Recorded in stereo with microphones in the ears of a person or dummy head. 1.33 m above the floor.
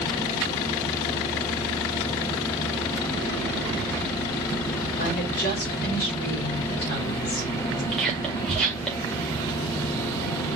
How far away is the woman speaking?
About 0.9 m.